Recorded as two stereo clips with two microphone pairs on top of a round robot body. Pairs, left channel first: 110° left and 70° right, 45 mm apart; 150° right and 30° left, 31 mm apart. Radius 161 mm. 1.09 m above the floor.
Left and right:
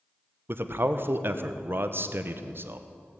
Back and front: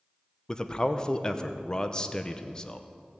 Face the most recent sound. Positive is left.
turn(degrees=-80)